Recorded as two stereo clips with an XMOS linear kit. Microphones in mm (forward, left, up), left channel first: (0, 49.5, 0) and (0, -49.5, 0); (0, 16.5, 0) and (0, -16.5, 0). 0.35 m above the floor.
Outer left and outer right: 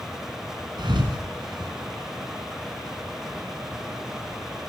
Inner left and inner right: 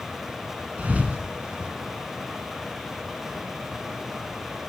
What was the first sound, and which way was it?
A thud, 50° right (ahead or behind).